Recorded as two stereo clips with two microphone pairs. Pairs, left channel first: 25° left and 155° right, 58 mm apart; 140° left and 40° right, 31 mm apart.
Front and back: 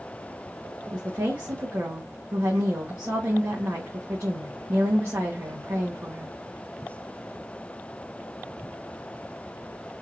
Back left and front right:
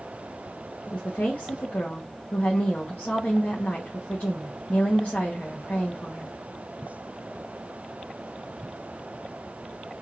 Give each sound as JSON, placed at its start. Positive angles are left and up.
{"t": 0.9, "sound": "a woman speaking", "azimuth_deg": 160, "distance_m": 1.6}